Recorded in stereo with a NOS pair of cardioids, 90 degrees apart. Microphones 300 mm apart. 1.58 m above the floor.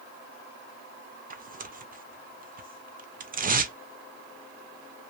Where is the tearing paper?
30° right, 0.6 m.